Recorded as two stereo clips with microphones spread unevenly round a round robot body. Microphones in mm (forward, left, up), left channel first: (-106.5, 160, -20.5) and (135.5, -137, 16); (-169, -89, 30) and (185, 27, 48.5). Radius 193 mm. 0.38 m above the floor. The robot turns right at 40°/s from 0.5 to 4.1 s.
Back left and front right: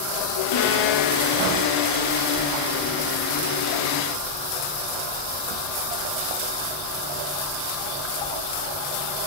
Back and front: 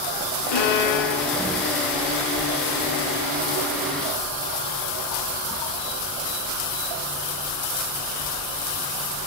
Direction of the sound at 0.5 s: 175° left.